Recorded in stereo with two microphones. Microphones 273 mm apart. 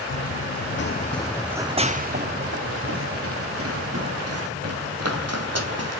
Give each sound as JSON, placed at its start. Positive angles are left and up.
{"t": 0.1, "sound": "running footsteps", "side_deg": 70, "distance_m": 0.8}